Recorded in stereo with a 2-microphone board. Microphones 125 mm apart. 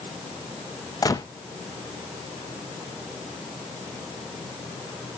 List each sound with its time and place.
1.0 s a gunshot: 30° left (ahead or behind), 0.8 m